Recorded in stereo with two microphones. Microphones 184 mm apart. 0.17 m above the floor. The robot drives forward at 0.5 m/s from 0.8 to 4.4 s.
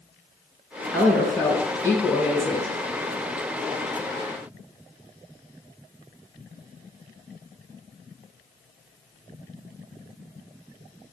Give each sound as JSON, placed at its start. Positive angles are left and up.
{"t": 0.9, "sound": "a woman speaking", "side_deg": 10, "distance_m": 1.8}